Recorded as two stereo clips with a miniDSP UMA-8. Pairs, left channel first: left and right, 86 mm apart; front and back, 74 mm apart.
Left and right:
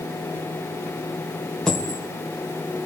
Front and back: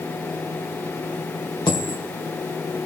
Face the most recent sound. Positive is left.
turn(degrees=5)